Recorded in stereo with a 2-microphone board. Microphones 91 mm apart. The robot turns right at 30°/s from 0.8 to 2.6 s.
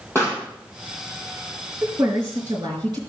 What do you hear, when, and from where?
0.1 s a pop: 25° left (ahead or behind), 4 m
1.8 s a woman speaking: 30° right (ahead or behind), 4.5 m; by 3.0 s 55° right (ahead or behind), 4.5 m